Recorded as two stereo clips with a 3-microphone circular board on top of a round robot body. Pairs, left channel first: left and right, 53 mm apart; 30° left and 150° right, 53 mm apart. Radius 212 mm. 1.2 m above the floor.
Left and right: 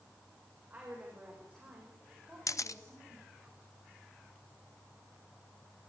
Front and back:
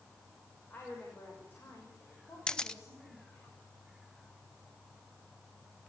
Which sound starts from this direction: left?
A camera shutter, at 2.5 s.